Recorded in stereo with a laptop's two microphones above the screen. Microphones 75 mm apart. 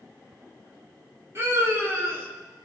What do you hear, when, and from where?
1.4 s a scream: 40° right (ahead or behind), 4.5 m